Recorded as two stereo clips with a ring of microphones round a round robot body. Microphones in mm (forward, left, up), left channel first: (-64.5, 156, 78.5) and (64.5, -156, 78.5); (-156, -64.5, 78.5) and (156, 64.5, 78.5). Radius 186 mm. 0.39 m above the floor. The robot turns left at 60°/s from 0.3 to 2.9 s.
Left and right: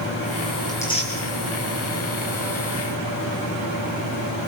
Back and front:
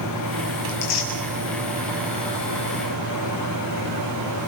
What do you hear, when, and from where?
0.7 s tearing paper: 160° right, 4.5 m; by 1.1 s 175° left, 4.5 m